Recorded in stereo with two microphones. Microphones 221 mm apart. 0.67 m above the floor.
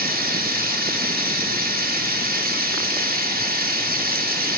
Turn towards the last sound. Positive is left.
turn(degrees=-40)  # may be behind; listen again after turning